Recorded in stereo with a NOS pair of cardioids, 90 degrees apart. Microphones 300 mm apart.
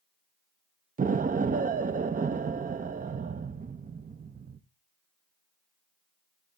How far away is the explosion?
About 0.8 m.